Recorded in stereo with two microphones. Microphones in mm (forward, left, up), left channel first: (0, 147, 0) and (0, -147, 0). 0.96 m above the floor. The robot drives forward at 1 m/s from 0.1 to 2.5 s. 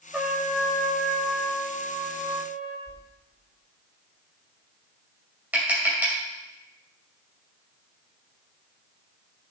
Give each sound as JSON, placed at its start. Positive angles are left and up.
{"t": 0.1, "sound": "a trumpet", "side_deg": -5, "distance_m": 1.7}
{"t": 2.9, "sound": "a whoosh", "side_deg": -25, "distance_m": 1.8}
{"t": 5.5, "sound": "tapping", "side_deg": -5, "distance_m": 3.0}